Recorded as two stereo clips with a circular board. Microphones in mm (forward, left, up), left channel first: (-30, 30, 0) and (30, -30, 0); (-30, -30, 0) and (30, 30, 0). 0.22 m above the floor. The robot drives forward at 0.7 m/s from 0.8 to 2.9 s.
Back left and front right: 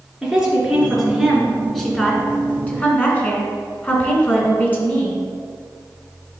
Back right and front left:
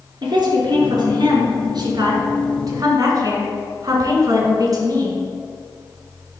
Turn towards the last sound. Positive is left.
turn(degrees=70)